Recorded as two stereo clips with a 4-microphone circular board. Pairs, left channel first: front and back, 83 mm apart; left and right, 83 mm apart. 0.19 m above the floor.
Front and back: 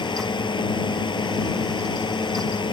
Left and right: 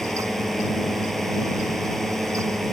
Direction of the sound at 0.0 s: Straight ahead.